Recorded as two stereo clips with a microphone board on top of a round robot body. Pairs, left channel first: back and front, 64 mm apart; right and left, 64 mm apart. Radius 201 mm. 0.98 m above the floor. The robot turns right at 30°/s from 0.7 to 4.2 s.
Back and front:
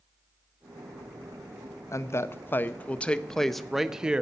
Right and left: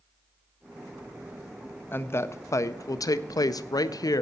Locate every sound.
1.9 s a woman speaking: 145° right, 0.6 m; by 4.2 s 75° right, 0.6 m